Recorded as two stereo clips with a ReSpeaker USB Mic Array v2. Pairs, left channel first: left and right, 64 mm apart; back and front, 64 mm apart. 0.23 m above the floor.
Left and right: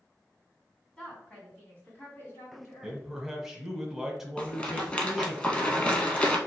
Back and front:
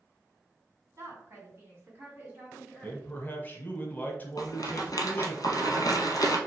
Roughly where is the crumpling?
No crumpling in this recording.